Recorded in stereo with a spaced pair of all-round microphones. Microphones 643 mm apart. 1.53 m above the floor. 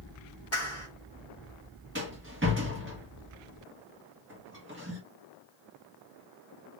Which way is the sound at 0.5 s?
20° left (ahead or behind).